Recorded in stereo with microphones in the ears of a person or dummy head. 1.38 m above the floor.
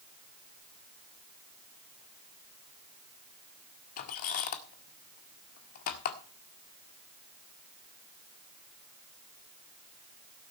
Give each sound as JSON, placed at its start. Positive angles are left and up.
{"t": 4.0, "sound": "a squeak", "side_deg": 50, "distance_m": 1.6}